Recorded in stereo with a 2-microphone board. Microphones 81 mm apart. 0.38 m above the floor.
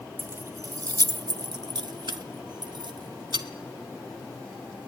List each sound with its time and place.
0.2 s keys jangling: 25° right (ahead or behind), 0.5 m; by 3.5 s 75° right (ahead or behind), 2 m